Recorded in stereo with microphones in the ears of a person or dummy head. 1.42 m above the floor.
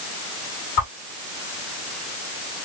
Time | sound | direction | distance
0.8 | a whoosh | 30° left (ahead or behind) | 1.6 m